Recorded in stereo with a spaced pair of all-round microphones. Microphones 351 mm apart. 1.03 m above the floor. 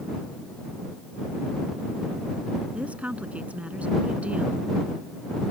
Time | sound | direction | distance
2.7 | a woman speaking | 5° right (ahead or behind) | ?